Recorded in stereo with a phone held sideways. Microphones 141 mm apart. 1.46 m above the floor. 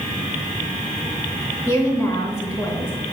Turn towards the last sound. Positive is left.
turn(degrees=25)  # may be behind; listen again after turning